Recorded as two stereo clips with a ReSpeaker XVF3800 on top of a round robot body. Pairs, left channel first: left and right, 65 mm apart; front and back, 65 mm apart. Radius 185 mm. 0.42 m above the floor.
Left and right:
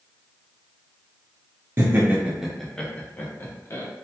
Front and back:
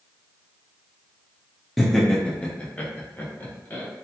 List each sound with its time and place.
1.8 s laughter: 85° right, 0.8 m; by 3.9 s 55° left, 1.1 m